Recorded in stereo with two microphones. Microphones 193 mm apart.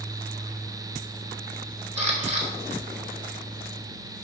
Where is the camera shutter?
35° right (ahead or behind), 2.5 m.